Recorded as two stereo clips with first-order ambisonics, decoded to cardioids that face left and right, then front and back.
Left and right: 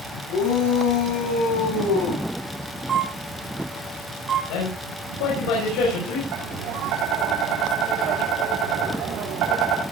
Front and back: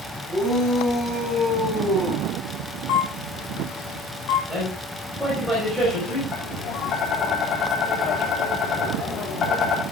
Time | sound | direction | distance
0.3 | a shout | 85° left | 7.5 m
2.9 | a camera shutter | 20° right | 3.5 m
4.5 | a man speaking | 95° left | 5.5 m
6.3 | tapping | 55° right | 4.5 m